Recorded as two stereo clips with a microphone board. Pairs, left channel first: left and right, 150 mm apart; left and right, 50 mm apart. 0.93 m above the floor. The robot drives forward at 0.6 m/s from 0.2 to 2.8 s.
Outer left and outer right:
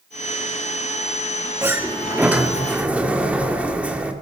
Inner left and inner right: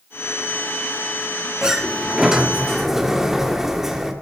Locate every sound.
1.6 s a sliding door: 15° right (ahead or behind), 0.9 m; by 4.1 s 10° right (ahead or behind), 1.6 m